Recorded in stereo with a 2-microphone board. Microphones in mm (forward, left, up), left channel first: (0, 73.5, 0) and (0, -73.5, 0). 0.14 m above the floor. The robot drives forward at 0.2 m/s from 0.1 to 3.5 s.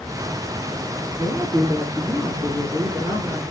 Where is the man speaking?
20° left (ahead or behind), 1.6 m; by 3.4 s 15° left (ahead or behind), 1.8 m.